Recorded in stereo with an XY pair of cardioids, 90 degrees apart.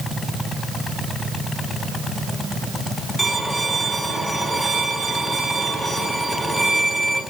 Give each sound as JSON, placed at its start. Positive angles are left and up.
{"t": 3.2, "sound": "a violin", "azimuth_deg": 10, "distance_m": 5.5}